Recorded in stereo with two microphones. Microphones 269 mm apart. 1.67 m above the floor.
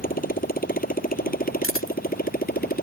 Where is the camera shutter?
50° left (ahead or behind).